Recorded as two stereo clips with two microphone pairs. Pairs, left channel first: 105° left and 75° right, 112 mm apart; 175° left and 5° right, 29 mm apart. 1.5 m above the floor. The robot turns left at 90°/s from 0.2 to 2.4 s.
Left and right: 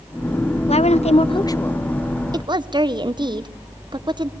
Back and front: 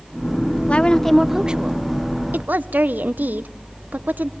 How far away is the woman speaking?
About 0.7 m.